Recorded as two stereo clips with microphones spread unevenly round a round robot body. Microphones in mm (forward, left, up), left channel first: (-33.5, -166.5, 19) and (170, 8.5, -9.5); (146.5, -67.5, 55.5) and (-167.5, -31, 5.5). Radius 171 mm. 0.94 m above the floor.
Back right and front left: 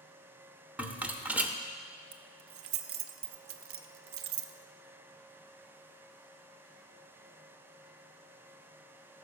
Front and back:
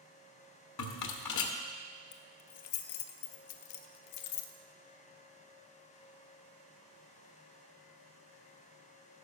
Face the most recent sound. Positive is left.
turn(degrees=-5)